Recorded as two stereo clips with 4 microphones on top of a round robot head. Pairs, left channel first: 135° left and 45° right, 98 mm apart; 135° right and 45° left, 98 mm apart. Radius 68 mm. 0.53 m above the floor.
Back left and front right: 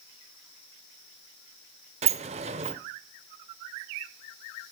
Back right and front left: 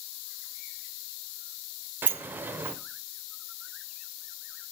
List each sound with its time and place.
2.0 s a sliding door: 30° right, 0.7 m